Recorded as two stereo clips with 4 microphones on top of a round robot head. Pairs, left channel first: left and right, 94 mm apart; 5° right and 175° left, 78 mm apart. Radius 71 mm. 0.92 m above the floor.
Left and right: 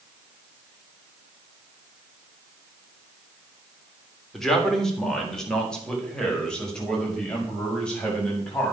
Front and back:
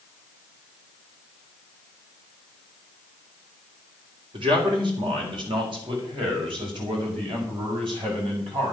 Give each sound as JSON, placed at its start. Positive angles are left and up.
{"t": 4.3, "sound": "a man speaking", "azimuth_deg": 175, "distance_m": 3.0}